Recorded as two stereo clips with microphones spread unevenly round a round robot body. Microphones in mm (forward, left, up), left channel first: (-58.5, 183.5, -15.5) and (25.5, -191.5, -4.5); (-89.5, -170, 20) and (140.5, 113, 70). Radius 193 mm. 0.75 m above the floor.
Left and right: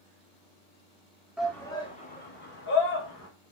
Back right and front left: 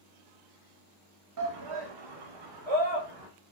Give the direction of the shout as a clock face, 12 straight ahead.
12 o'clock.